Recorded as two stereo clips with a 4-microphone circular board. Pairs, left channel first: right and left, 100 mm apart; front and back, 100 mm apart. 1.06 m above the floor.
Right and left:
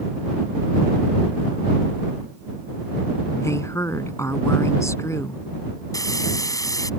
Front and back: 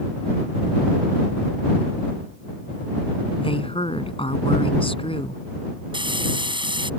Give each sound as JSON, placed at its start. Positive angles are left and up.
{"t": 3.4, "sound": "a woman speaking", "azimuth_deg": -30}
{"t": 5.9, "sound": "frying", "azimuth_deg": -145}